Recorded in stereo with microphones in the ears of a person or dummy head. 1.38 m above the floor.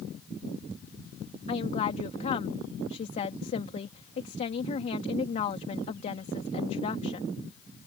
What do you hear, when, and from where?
1.5 s a woman speaking: 35° left (ahead or behind)